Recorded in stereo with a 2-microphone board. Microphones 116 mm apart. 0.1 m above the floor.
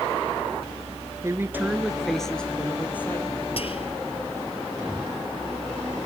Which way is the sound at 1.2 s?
25° right (ahead or behind).